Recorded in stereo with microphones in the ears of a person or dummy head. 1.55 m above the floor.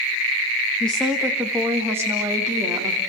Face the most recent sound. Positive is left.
turn(degrees=-15)  # may be behind; listen again after turning